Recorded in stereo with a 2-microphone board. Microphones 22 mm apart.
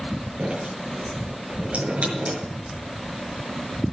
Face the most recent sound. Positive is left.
turn(degrees=-70)  # may be behind; listen again after turning